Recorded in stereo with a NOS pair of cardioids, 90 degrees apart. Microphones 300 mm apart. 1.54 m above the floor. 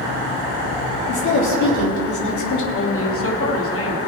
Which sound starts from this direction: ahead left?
A woman speaking, at 2.7 s.